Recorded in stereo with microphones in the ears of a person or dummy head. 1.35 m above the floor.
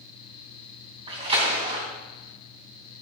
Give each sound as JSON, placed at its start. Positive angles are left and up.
{"t": 1.1, "sound": "a splash", "side_deg": -30, "distance_m": 3.0}